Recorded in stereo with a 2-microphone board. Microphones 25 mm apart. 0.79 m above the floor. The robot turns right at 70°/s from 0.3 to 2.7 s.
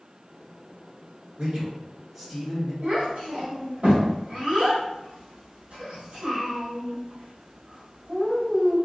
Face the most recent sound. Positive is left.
turn(degrees=-65)  # may be behind; listen again after turning